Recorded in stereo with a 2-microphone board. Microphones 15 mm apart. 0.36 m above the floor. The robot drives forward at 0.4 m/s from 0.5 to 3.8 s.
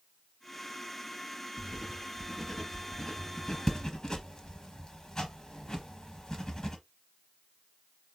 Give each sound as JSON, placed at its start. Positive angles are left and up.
{"t": 1.6, "sound": "writing", "side_deg": 15, "distance_m": 1.6}